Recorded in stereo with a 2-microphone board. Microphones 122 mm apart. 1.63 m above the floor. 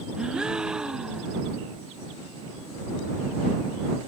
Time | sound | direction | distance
0.2 | a gasp | 5° right (ahead or behind) | ?